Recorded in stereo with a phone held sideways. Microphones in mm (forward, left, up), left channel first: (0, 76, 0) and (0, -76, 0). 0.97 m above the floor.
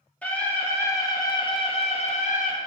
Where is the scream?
10° left (ahead or behind), 1.8 m; by 2.5 s 60° left (ahead or behind), 1.1 m.